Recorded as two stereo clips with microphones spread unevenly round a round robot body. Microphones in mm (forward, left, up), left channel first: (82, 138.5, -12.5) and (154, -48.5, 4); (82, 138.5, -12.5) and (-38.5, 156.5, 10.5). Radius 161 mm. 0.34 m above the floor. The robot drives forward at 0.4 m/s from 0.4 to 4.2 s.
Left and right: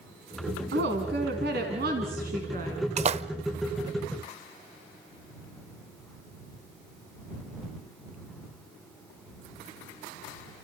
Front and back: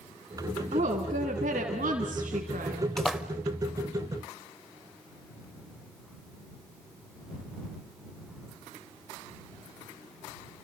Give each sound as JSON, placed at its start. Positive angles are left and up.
{"t": 0.7, "sound": "a woman speaking", "azimuth_deg": -120, "distance_m": 2.5}
{"t": 3.0, "sound": "a splash", "azimuth_deg": -70, "distance_m": 0.7}